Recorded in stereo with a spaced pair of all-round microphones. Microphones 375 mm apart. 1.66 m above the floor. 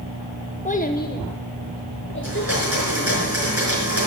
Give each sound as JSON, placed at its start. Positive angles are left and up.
{"t": 0.7, "sound": "a child speaking", "side_deg": 20, "distance_m": 0.7}
{"t": 2.2, "sound": "a blender", "side_deg": -40, "distance_m": 5.0}